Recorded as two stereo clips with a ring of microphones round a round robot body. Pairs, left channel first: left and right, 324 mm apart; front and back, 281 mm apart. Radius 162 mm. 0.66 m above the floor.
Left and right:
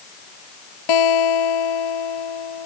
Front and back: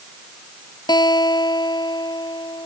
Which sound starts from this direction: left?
A guitar, at 0.9 s.